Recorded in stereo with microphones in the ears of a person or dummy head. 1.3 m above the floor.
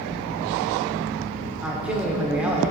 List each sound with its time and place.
1.6 s a man speaking: 5° right (ahead or behind), 1.4 m